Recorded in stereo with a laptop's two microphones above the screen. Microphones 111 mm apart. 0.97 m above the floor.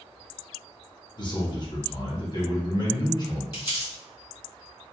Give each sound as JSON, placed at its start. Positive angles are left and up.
{"t": 1.2, "sound": "a man speaking", "side_deg": 40, "distance_m": 0.9}
{"t": 3.5, "sound": "crumpling", "side_deg": 35, "distance_m": 1.5}